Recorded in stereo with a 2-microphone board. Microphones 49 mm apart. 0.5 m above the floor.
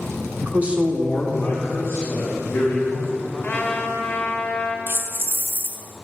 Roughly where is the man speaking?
Right.